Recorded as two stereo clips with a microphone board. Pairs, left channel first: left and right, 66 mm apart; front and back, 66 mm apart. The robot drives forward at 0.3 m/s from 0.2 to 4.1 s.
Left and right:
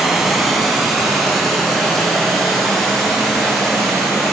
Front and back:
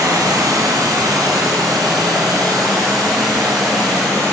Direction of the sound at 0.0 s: 175° right.